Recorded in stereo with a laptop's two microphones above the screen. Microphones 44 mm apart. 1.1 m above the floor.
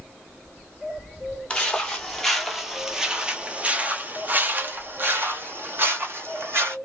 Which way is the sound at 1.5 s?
20° left (ahead or behind).